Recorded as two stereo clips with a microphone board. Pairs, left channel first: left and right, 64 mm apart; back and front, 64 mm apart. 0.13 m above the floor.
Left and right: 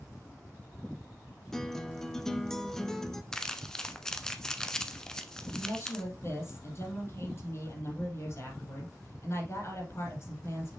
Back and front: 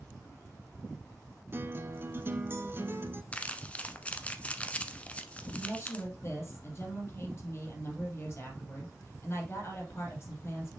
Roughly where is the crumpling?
Behind left.